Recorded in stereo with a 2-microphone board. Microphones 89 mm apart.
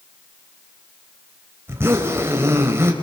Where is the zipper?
25° right (ahead or behind), 3.5 m.